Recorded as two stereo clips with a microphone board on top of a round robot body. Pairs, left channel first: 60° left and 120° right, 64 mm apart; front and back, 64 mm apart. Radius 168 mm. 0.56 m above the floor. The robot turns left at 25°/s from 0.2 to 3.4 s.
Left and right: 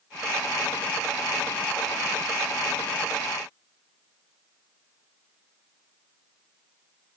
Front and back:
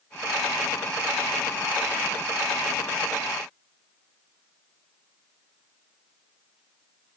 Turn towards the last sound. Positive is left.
No sound to turn to.